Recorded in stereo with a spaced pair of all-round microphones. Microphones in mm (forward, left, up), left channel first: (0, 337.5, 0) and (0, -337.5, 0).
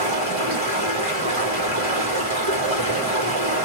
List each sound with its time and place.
0.0 s running water: 45° right (ahead or behind), 3 m